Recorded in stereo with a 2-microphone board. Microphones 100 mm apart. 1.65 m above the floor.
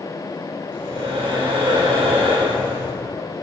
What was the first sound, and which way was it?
Breathing, 75° right (ahead or behind).